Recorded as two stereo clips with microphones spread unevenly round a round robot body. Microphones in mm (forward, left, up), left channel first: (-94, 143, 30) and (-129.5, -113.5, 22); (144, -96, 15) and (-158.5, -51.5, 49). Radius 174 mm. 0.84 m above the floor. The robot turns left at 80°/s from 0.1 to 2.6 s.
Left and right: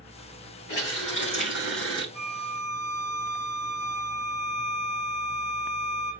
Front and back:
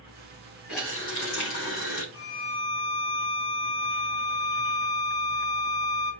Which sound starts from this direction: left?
A running tap, at 0.7 s.